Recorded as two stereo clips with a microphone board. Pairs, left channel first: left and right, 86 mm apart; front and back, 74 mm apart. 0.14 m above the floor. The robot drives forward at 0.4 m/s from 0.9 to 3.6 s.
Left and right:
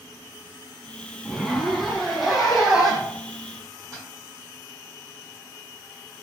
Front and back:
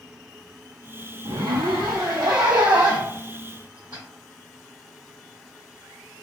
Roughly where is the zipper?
Behind.